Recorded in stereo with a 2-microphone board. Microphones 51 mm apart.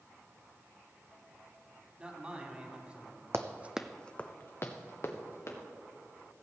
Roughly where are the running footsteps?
Right.